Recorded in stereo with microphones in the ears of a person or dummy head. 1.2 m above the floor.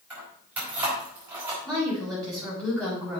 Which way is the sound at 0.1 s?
5° right (ahead or behind).